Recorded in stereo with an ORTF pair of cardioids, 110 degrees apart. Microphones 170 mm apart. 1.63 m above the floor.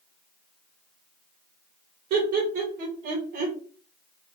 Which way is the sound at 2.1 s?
65° right.